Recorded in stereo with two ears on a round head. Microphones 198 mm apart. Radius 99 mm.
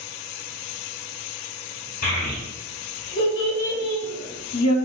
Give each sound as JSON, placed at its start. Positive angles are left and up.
{"t": 2.0, "sound": "a child speaking", "side_deg": 40, "distance_m": 1.8}